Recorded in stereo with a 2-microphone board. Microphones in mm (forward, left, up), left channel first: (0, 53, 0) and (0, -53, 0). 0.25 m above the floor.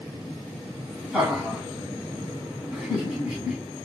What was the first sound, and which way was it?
Laughter, 5° right (ahead or behind).